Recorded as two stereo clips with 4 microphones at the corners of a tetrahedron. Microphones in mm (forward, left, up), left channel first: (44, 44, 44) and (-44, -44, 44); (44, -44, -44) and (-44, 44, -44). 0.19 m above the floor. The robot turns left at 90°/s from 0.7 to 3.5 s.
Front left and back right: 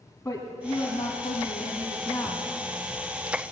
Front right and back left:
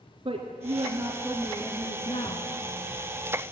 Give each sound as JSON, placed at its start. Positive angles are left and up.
{"t": 0.2, "sound": "a woman speaking", "azimuth_deg": 110, "distance_m": 2.5}